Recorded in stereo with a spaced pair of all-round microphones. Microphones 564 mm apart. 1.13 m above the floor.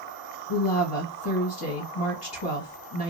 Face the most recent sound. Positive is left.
turn(degrees=55)  # may be behind; listen again after turning